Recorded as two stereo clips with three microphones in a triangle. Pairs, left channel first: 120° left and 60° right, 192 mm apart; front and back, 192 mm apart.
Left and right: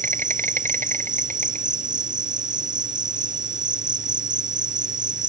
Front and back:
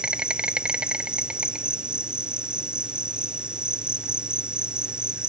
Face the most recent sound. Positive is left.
turn(degrees=-95)